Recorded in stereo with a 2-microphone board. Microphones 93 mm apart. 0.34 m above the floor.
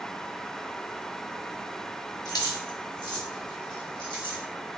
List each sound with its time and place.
2.2 s keys jangling: 40° left (ahead or behind), 0.9 m; by 4.4 s 55° left (ahead or behind), 2 m